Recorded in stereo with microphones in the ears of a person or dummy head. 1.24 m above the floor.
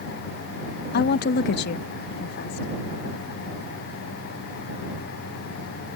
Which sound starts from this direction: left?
A woman speaking, at 0.9 s.